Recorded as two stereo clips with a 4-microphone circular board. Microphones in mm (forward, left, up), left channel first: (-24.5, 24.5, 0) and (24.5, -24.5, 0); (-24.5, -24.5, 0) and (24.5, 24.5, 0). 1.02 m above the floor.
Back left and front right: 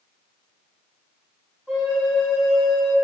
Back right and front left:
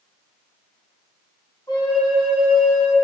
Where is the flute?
135° right, 1.7 m.